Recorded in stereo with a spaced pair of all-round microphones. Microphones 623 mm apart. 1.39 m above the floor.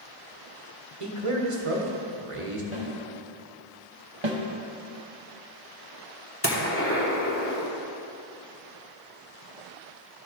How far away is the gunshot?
About 1.2 m.